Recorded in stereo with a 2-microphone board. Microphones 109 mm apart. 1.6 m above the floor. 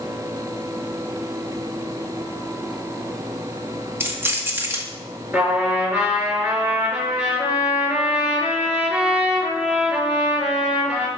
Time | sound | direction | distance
4.0 | keys jangling | 20° right (ahead or behind) | 1.6 m
5.3 | a trumpet | 10° right (ahead or behind) | 5.5 m